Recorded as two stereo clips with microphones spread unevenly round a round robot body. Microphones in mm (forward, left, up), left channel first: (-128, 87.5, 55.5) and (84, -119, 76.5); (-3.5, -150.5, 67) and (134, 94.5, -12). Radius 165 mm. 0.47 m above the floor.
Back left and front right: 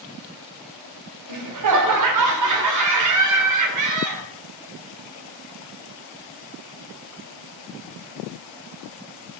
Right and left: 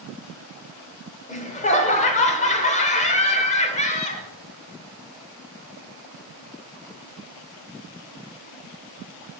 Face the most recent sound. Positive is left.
turn(degrees=-45)